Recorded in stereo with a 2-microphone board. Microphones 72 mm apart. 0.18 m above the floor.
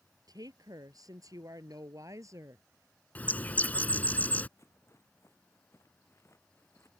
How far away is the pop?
I don't hear a pop.